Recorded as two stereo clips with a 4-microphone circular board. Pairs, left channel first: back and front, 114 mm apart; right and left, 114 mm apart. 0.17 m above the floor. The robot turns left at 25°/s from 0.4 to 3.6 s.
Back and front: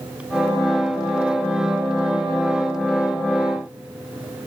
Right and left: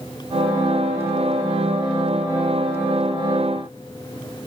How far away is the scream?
No scream in this recording.